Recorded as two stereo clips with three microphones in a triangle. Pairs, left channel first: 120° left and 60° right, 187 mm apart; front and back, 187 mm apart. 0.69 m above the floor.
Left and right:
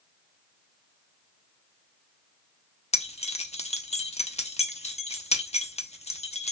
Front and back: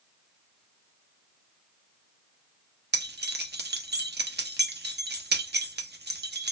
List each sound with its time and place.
2.9 s keys jangling: 175° left, 0.5 m